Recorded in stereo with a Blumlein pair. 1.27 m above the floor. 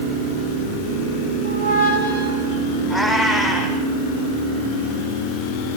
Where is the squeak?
55° right, 6.5 m.